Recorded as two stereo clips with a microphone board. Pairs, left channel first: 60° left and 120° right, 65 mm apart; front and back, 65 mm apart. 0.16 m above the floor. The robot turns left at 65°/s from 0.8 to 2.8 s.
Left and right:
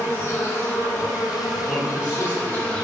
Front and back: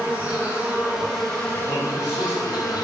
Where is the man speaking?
100° right, 1.5 m; by 2.8 s 175° right, 1.5 m.